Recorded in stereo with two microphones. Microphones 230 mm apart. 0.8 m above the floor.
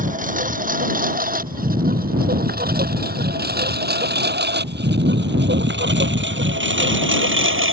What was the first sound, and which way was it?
A lawn mower, 35° right (ahead or behind).